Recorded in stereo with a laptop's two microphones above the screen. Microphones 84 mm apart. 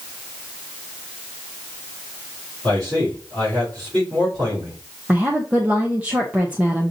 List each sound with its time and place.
2.6 s a man speaking: 50° right (ahead or behind), 3.5 m
5.1 s a woman speaking: 15° right (ahead or behind), 0.7 m